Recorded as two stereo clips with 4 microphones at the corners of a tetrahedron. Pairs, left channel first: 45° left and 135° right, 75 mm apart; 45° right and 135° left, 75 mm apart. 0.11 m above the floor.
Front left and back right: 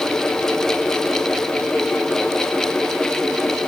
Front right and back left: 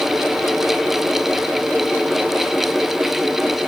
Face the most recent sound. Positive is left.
No sound to turn to.